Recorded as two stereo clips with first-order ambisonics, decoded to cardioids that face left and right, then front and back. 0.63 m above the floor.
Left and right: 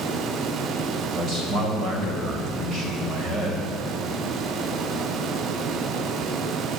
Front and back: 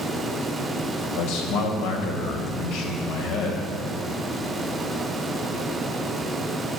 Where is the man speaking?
30° right, 3.5 m.